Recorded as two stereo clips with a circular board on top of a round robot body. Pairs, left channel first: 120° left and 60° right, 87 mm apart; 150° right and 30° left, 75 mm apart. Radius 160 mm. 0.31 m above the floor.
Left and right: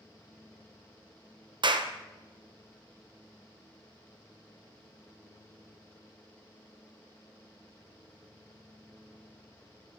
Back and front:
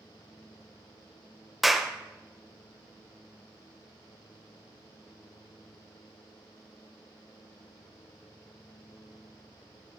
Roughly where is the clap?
Ahead right.